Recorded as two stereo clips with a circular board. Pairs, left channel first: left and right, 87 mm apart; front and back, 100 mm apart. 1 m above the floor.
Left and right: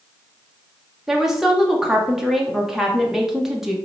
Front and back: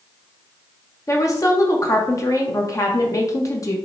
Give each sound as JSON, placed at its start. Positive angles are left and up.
{"t": 1.1, "sound": "a woman speaking", "azimuth_deg": -10, "distance_m": 0.7}